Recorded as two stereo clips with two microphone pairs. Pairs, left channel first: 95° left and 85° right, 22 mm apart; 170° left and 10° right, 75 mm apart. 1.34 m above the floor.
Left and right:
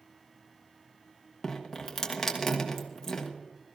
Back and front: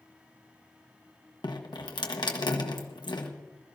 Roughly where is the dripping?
Behind.